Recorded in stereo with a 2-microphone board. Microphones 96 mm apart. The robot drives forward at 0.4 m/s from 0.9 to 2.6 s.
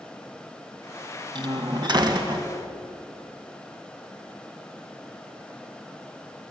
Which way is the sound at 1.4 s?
50° right (ahead or behind).